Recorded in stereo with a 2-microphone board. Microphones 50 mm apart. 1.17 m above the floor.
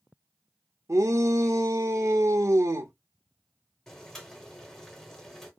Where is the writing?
No writing in this recording.